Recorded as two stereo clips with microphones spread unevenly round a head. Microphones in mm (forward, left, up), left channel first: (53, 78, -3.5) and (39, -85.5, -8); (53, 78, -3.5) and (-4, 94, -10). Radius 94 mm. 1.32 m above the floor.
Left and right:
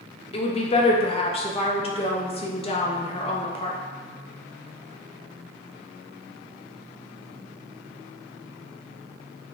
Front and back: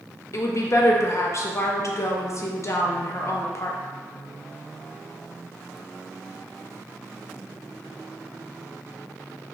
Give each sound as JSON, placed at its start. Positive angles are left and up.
{"t": 0.3, "sound": "a woman speaking", "azimuth_deg": 30, "distance_m": 0.6}